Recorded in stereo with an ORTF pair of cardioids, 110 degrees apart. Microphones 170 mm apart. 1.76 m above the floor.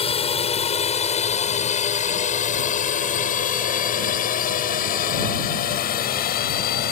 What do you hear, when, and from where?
0.0 s a drone: 35° left; by 6.9 s 65° left